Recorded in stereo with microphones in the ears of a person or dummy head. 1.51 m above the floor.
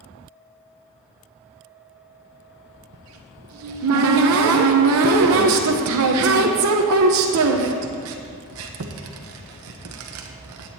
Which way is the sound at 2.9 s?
75° right (ahead or behind).